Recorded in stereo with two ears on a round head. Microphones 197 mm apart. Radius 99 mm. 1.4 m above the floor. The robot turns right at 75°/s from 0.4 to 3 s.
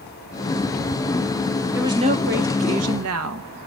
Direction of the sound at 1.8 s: 170° right.